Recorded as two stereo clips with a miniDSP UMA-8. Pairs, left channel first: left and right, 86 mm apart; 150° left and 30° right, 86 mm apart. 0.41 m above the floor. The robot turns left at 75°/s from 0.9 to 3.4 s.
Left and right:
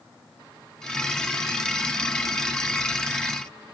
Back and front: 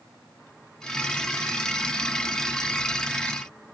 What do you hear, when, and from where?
Only background noise.